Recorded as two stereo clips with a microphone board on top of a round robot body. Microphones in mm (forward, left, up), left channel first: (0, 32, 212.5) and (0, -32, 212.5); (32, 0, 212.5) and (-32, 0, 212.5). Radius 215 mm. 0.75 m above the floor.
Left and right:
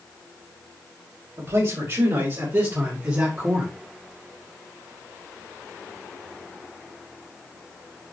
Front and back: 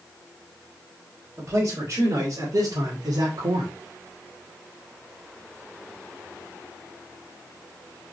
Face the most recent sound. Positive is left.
turn(degrees=-165)